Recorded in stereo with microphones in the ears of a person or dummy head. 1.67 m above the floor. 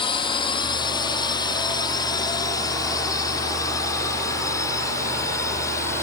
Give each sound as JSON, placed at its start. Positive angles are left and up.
{"t": 0.0, "sound": "a drone", "side_deg": 25}